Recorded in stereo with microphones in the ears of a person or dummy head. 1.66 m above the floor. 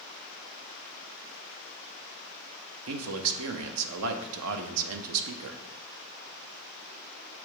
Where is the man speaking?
85° right, 0.7 m.